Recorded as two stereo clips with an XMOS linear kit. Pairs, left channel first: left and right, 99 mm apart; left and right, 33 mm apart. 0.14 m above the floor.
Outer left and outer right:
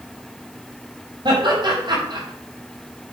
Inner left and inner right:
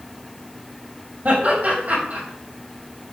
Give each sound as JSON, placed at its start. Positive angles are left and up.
{"t": 1.2, "sound": "laughter", "side_deg": -50, "distance_m": 7.0}